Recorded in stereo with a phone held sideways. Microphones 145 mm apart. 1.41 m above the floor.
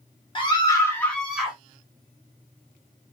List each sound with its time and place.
0.3 s a scream: 35° left (ahead or behind), 1.8 m; by 1.6 s 10° right (ahead or behind), 1.8 m